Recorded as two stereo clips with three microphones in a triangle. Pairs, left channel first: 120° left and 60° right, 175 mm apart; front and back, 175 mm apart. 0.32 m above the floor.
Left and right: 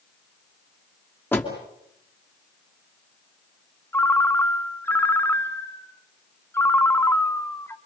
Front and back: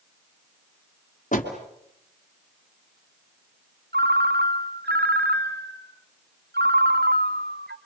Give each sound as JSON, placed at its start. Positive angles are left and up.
{"t": 1.3, "sound": "a door slam", "azimuth_deg": 40, "distance_m": 3.0}
{"t": 3.9, "sound": "a ringtone", "azimuth_deg": -165, "distance_m": 1.1}